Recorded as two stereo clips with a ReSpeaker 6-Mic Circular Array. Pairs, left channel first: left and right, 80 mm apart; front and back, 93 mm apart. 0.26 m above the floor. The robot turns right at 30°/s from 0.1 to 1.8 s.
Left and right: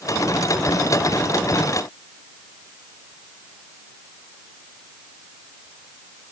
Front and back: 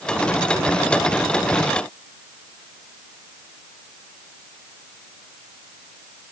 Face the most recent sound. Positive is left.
No sound to turn to.